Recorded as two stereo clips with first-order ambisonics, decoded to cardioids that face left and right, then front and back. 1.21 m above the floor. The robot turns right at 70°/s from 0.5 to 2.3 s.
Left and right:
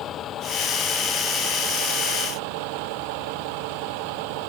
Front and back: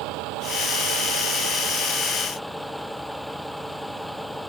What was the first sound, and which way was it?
A vehicle, 145° left.